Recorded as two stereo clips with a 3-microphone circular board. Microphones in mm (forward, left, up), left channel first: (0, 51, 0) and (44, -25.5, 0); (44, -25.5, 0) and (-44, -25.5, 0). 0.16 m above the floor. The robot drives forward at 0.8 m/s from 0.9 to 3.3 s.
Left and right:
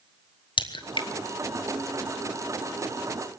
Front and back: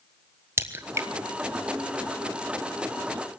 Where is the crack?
120° left, 1.2 m; by 1.1 s 125° left, 1.3 m.